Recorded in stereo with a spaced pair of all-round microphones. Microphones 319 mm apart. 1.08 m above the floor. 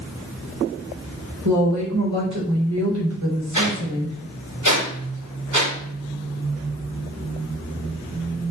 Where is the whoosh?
65° right (ahead or behind), 3 m.